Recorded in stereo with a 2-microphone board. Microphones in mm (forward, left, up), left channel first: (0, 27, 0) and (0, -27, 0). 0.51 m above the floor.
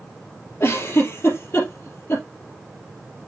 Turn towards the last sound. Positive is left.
turn(degrees=50)  # may be behind; listen again after turning